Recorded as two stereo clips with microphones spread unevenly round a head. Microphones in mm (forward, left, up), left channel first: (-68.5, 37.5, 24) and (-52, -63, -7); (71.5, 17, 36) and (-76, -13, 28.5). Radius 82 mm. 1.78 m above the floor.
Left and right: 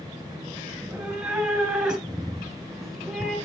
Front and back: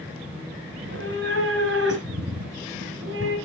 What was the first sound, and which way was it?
A cat meowing, 170° right.